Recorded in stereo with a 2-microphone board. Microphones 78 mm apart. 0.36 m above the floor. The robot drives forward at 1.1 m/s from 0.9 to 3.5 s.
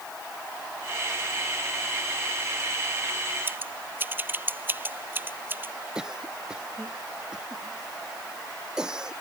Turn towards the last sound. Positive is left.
turn(degrees=-10)  # may be behind; listen again after turning